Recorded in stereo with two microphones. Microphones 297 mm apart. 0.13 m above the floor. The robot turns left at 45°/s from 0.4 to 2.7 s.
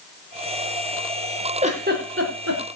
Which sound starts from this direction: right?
A giggle, at 1.6 s.